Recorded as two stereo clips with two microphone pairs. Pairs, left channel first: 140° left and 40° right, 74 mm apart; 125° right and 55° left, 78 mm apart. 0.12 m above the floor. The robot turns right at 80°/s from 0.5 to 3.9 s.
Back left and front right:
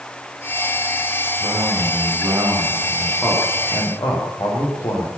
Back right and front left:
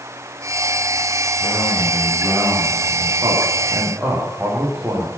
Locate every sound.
1.4 s a man speaking: 70° right, 9 m; by 5.1 s 130° left, 9 m